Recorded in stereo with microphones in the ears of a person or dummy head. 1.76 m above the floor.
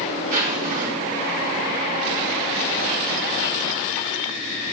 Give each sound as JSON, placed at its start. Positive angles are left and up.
{"t": 0.3, "sound": "a zipper", "side_deg": -45, "distance_m": 1.8}